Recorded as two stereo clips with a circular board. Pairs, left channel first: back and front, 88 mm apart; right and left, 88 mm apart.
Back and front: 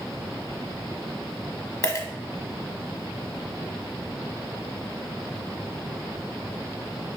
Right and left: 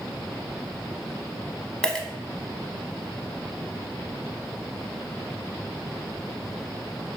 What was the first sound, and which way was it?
A dropped coin, 170° right.